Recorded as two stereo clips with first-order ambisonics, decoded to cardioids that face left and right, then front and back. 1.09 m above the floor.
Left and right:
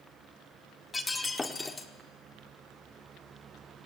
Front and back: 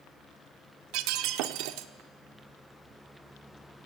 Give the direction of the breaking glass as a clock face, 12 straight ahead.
6 o'clock.